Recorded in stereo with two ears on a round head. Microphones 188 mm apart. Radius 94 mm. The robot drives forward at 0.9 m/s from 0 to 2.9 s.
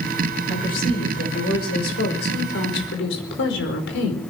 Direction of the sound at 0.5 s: 45° left (ahead or behind).